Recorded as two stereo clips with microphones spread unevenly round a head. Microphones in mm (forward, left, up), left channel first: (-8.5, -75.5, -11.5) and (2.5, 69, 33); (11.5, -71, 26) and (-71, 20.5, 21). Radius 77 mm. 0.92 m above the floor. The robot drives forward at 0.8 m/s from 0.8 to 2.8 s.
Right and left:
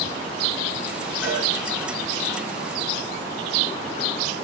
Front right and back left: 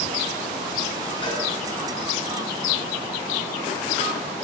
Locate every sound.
1.2 s a cowbell: 95° right, 8.5 m